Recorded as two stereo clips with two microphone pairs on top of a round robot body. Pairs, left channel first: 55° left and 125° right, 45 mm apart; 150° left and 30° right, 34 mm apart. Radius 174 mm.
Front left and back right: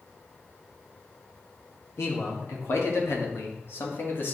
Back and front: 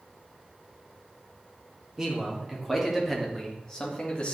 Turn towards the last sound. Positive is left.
turn(degrees=95)